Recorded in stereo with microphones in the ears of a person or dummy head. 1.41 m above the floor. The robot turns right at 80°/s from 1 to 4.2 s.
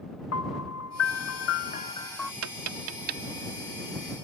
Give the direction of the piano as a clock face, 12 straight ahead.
9 o'clock.